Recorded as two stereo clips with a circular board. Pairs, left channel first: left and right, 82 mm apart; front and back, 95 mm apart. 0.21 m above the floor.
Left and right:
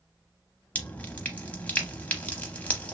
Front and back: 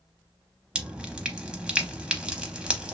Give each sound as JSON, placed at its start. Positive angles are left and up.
{"t": 0.8, "sound": "dripping", "azimuth_deg": 120, "distance_m": 0.7}